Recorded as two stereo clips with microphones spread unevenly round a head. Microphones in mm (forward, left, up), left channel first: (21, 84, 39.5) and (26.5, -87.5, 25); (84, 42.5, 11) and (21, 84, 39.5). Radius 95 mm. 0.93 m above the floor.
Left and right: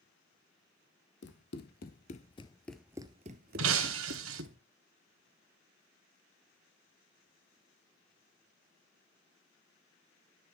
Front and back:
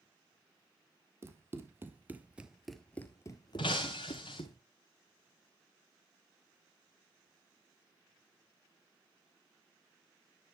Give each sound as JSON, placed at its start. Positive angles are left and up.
{"t": 1.2, "sound": "running footsteps", "azimuth_deg": 110, "distance_m": 2.0}
{"t": 3.6, "sound": "breaking glass", "azimuth_deg": -95, "distance_m": 1.9}